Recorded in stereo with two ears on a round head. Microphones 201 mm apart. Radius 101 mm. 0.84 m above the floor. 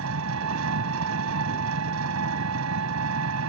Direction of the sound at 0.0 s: 75° right (ahead or behind).